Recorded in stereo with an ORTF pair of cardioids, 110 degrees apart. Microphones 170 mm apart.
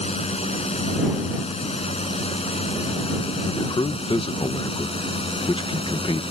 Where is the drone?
40° left; by 6.3 s 35° left.